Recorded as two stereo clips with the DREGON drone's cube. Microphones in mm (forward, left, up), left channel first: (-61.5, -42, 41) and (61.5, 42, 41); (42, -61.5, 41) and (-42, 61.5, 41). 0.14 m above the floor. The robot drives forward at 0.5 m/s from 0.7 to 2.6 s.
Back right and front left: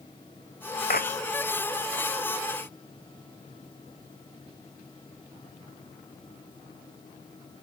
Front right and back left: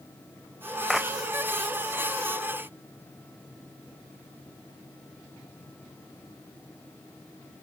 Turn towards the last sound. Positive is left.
turn(degrees=-150)